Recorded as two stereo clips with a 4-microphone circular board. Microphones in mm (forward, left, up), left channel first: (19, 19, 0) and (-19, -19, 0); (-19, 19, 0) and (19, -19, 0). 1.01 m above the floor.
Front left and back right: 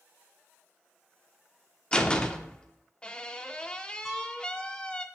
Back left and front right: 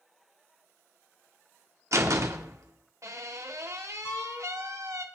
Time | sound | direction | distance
1.9 | a door slam | 25° right | 1.7 m
4.0 | a piano | 140° left | 3.5 m